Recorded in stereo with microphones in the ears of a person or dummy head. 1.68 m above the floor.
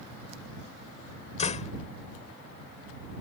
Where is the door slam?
45° left (ahead or behind).